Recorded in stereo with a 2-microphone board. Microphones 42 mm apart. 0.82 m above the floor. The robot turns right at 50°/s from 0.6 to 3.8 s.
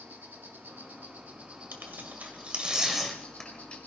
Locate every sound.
0.0 s an insect: 85° right, 2.0 m; by 3.9 s 75° left, 2.0 m
1.7 s tearing paper: 70° right (ahead or behind), 1.7 m; by 3.8 s 35° left (ahead or behind), 1.7 m